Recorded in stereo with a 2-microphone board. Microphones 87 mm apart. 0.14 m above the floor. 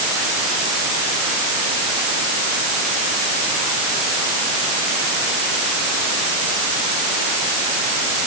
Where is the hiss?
No hiss in this recording.